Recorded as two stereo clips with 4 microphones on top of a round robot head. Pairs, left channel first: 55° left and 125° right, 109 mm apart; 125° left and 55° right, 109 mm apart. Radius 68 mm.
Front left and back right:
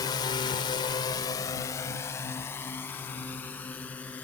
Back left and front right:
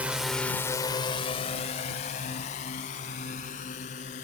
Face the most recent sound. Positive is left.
turn(degrees=135)